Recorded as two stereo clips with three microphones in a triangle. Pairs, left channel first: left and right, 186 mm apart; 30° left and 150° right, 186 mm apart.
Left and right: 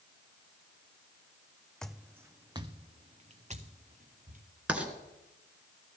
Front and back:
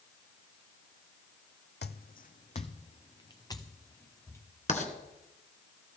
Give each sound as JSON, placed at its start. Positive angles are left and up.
{"t": 1.8, "sound": "footsteps", "azimuth_deg": 5, "distance_m": 0.6}
{"t": 4.7, "sound": "writing", "azimuth_deg": -10, "distance_m": 2.0}